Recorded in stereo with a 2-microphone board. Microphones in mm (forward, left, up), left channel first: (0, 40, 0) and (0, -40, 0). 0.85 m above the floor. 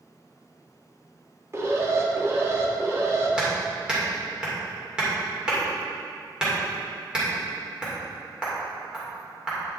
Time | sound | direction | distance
1.5 | an alarm | 35° right (ahead or behind) | 1.2 m
3.4 | hammering | 10° right (ahead or behind) | 2.5 m